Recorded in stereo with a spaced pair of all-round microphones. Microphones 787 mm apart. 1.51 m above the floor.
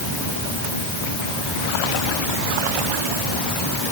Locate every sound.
Only background noise.